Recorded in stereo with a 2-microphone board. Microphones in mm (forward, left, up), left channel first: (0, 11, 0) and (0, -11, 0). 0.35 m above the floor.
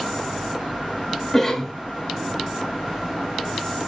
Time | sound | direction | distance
1.3 | a cough | 20° left (ahead or behind) | 0.9 m